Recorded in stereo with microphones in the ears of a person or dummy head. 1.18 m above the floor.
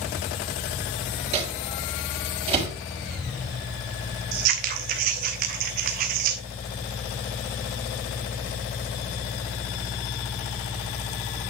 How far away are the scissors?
About 1.0 m.